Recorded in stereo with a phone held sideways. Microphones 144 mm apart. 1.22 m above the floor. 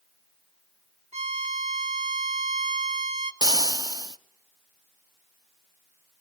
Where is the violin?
50° right (ahead or behind), 1.3 m.